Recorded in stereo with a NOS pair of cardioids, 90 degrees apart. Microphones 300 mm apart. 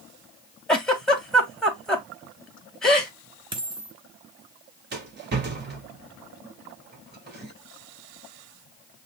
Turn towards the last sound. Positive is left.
turn(degrees=-35)